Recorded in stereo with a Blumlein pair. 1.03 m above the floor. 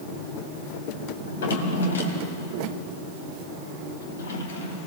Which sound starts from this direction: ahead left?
A drawer, at 1.2 s.